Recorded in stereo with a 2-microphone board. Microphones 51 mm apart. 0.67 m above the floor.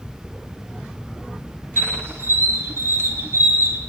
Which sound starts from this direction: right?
A squeak, at 1.8 s.